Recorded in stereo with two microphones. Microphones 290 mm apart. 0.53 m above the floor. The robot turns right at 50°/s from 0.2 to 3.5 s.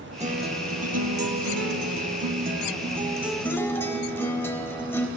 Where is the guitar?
155° right, 0.6 m; by 5.1 s 10° left, 0.6 m.